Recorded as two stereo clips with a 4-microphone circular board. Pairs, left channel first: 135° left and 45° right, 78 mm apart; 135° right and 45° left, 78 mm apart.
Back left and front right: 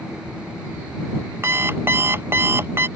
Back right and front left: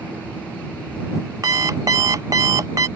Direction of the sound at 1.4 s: 10° left.